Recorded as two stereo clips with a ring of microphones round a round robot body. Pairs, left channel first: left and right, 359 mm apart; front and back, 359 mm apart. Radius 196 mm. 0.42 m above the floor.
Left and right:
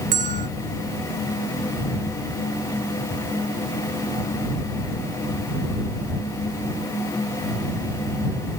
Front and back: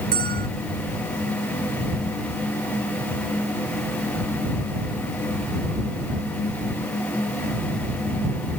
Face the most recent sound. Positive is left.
turn(degrees=-110)